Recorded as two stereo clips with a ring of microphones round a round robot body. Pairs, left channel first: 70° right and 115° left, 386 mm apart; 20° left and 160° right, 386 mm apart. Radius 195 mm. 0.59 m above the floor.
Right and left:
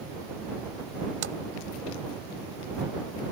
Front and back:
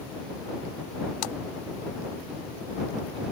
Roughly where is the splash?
Ahead left.